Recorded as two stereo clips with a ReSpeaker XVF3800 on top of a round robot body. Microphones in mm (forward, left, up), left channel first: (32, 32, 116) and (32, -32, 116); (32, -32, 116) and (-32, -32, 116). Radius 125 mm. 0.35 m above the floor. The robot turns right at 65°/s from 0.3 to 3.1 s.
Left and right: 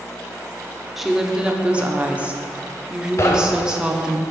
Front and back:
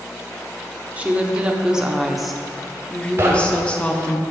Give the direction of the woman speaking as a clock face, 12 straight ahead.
6 o'clock.